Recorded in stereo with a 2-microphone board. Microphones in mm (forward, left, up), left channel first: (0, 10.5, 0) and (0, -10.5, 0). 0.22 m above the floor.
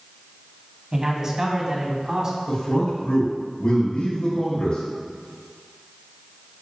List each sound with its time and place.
0.9 s a man speaking: 25° right (ahead or behind), 1.7 m; by 2.4 s 30° right (ahead or behind), 2.5 m
2.5 s a man speaking: 55° left (ahead or behind), 2.5 m